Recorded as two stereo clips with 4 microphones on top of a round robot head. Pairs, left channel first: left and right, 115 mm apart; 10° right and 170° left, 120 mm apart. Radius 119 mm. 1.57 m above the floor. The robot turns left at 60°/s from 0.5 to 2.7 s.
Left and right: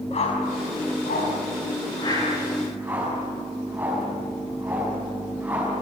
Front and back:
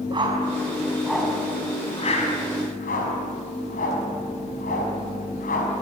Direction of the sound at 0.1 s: 120° left.